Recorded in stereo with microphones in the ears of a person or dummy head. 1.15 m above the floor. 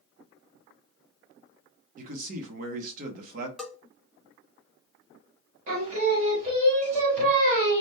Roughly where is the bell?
Centre.